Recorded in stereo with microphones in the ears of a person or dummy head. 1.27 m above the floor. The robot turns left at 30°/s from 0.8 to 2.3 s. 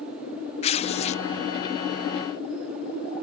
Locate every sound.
0.6 s tearing paper: 30° left (ahead or behind)